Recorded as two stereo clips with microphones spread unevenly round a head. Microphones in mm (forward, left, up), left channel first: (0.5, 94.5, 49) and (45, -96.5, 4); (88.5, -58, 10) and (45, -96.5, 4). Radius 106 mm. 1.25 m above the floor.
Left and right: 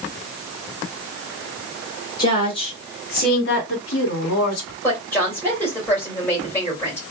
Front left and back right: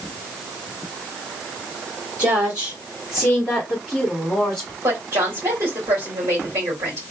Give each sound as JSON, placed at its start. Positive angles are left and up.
{"t": 2.2, "sound": "a woman speaking", "azimuth_deg": 175, "distance_m": 2.0}
{"t": 4.8, "sound": "a woman speaking", "azimuth_deg": -175, "distance_m": 2.5}